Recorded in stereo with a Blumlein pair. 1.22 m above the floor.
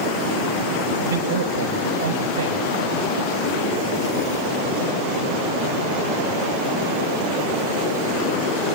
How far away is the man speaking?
About 5.5 m.